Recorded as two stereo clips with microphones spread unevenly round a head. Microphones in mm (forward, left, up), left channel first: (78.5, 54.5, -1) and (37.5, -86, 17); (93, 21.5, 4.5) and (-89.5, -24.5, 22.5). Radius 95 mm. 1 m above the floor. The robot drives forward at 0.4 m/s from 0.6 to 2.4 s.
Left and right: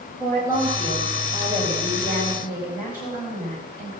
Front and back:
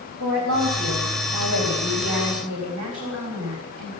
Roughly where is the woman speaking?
Behind.